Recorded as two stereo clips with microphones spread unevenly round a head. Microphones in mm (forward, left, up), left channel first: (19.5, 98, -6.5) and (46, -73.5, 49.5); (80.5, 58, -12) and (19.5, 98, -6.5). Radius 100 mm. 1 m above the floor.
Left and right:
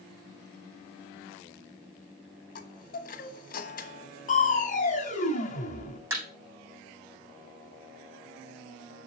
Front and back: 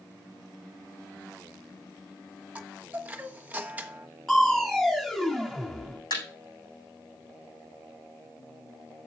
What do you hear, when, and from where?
2.5 s a chime: 75° left, 1.1 m
4.3 s crushing: 55° left, 2 m
6.1 s a thud: 10° right, 7 m